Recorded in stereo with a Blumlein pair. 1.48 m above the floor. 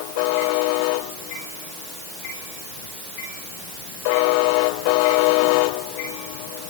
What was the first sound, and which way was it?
Only background noise.